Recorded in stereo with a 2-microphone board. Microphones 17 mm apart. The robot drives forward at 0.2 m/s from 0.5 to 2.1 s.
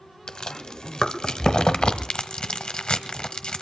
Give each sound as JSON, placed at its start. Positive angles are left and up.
{"t": 0.3, "sound": "chewing", "side_deg": 65, "distance_m": 1.1}